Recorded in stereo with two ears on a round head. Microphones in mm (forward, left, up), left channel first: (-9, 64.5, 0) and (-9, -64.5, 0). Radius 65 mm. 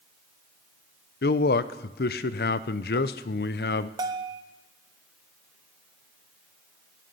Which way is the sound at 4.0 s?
25° right (ahead or behind).